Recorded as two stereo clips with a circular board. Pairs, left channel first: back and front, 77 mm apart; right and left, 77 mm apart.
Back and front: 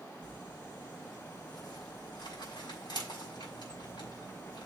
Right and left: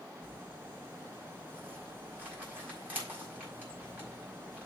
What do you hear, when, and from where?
0.2 s crumpling: 160° left, 5 m